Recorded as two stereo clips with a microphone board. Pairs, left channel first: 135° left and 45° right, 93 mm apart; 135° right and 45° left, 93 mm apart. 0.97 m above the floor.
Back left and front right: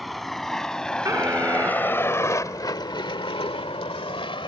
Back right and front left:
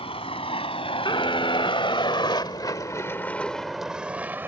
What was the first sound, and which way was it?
A vehicle, 135° right.